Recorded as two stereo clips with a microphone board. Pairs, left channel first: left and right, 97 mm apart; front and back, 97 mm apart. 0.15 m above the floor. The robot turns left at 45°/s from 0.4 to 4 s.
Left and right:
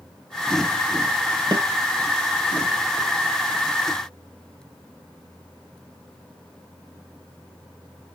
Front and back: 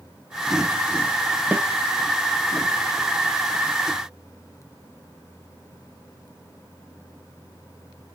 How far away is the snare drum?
About 0.7 m.